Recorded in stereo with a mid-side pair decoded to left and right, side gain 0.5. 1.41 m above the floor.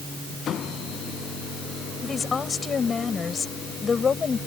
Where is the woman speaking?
30° left.